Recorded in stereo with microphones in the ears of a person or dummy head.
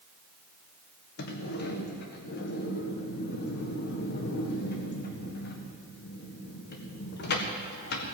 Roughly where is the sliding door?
Left.